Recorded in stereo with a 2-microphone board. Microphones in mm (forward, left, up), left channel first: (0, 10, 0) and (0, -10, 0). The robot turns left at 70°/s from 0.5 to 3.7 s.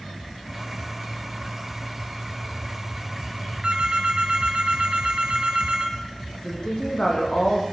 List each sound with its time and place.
3.6 s a phone ringing: 50° right (ahead or behind), 3 m
6.3 s a woman speaking: 45° left (ahead or behind), 8.5 m